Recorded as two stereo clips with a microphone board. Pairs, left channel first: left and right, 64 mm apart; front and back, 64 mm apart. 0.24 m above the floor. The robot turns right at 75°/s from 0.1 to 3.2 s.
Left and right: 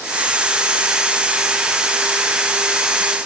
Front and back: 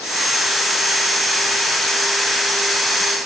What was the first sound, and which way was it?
Only background noise.